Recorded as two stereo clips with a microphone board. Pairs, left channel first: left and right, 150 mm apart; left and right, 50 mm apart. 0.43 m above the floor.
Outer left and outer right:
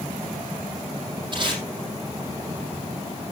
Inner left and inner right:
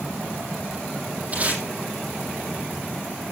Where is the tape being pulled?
35° right (ahead or behind), 6.5 m.